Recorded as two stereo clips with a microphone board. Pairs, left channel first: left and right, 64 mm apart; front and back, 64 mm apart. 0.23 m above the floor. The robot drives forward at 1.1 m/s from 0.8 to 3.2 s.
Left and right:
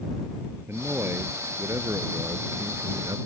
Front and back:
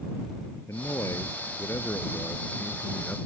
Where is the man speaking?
35° right; by 3.2 s 70° right.